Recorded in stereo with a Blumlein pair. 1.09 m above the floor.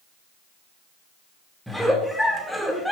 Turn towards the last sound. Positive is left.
turn(degrees=0)